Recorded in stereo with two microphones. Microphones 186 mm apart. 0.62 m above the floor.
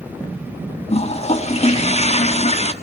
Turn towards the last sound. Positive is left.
turn(degrees=35)  # may be behind; listen again after turning